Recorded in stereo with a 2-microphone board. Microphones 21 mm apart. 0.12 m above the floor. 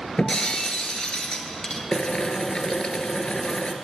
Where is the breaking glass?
50° left (ahead or behind), 1.1 m.